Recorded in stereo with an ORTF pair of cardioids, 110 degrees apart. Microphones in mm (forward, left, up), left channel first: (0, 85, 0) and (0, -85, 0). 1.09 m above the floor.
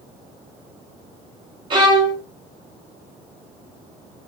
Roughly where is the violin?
Ahead right.